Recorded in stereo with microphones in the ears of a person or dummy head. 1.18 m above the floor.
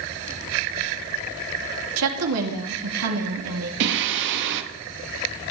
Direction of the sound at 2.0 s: 75° right (ahead or behind).